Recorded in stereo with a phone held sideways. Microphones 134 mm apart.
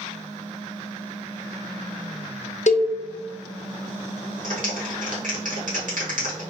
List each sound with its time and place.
2.7 s a cowbell: 60° left (ahead or behind), 0.5 m
4.4 s a clap: 80° right, 1.3 m